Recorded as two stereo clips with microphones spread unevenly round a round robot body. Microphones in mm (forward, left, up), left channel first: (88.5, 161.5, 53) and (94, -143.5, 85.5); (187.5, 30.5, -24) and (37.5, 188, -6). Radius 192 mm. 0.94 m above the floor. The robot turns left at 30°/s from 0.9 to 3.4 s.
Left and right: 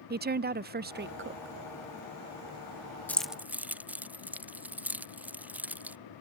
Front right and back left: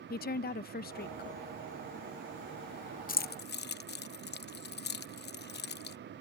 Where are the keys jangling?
10° left; by 6.0 s straight ahead.